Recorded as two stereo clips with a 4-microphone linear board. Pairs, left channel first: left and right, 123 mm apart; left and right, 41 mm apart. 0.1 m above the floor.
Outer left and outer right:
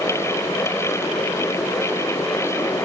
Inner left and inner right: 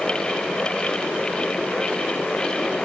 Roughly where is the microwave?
I don't hear a microwave.